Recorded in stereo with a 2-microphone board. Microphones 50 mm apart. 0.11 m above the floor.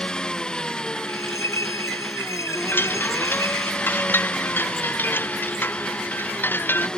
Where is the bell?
85° left.